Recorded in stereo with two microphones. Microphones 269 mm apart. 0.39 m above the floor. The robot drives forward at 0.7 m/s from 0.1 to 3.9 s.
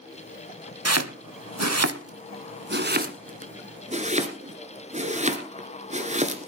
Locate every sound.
0.8 s chopping: 65° right (ahead or behind), 0.9 m; by 6.5 s 25° right (ahead or behind), 2.0 m